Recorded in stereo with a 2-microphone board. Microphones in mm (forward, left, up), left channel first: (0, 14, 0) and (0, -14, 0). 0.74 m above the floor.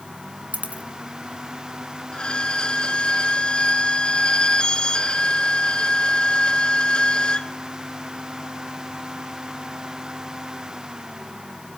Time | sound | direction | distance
0.5 | a dropped coin | 65° right (ahead or behind) | 1.9 m
2.1 | a violin | 35° left (ahead or behind) | 1.4 m